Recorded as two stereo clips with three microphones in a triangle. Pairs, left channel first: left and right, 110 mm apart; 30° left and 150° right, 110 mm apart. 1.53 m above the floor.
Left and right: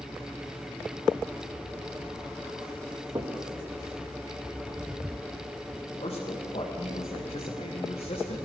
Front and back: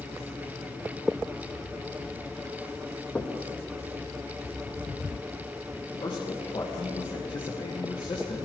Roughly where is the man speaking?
Left.